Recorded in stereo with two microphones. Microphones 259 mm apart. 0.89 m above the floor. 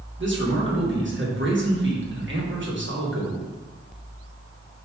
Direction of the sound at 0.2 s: 45° right (ahead or behind).